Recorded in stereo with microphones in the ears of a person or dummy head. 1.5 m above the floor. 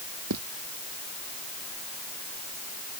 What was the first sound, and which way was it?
Footsteps, 80° right.